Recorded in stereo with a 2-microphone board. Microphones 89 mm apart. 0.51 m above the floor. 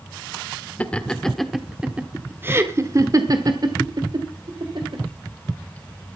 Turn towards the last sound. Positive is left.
turn(degrees=-65)  # may be behind; listen again after turning